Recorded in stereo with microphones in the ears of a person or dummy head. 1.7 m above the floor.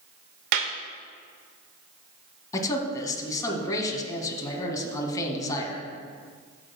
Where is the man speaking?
25° left (ahead or behind), 1.7 m.